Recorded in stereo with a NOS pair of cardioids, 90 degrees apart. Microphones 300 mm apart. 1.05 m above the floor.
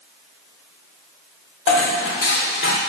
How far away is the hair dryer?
I don't hear a hair dryer.